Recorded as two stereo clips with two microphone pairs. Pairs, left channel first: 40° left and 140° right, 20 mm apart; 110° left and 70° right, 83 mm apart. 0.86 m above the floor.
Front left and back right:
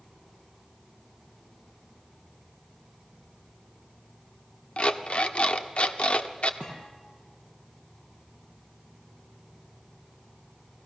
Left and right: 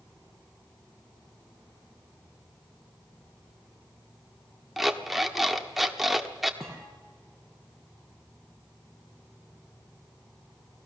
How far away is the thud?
About 6.5 m.